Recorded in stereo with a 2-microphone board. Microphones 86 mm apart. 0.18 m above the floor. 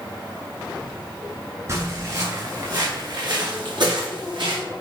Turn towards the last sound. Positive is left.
turn(degrees=-65)  # may be behind; listen again after turning